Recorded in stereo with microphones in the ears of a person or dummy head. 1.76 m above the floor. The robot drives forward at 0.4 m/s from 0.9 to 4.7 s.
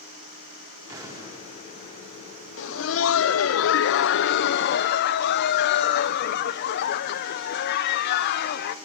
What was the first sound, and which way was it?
An explosion, 20° right (ahead or behind).